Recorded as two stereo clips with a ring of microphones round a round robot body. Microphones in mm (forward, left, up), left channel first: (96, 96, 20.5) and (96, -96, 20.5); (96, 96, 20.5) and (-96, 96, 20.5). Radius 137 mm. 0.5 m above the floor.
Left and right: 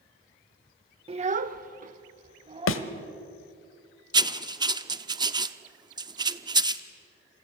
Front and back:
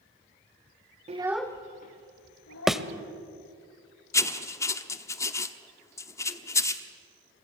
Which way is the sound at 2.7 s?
90° left.